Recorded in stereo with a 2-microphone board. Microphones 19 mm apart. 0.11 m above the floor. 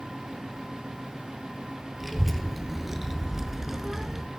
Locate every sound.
2.0 s a child speaking: 5° right (ahead or behind), 1.3 m; by 4.2 s 25° right (ahead or behind), 0.7 m